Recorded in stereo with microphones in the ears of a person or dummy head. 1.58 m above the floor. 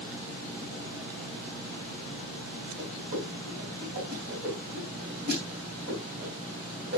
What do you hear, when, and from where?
2.8 s a whoosh: 50° right (ahead or behind), 3 m